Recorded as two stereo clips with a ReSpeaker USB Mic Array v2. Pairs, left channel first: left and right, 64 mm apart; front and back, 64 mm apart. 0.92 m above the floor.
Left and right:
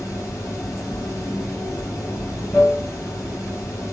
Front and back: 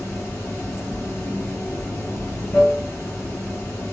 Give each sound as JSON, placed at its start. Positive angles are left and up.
{"t": 0.0, "sound": "running water", "azimuth_deg": 55, "distance_m": 1.7}